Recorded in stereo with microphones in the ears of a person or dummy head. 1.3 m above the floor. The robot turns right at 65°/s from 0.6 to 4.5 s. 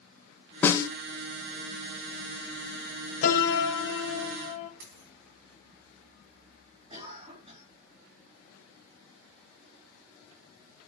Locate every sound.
0.6 s a snare drum: centre (ahead or behind), 0.6 m; by 0.9 s 15° left (ahead or behind), 0.6 m
3.2 s a piano: 35° left, 1.3 m; by 4.7 s 120° left, 1.3 m
4.8 s a dropped coin: 60° right (ahead or behind), 3 m
6.9 s a cough: 25° right (ahead or behind), 3 m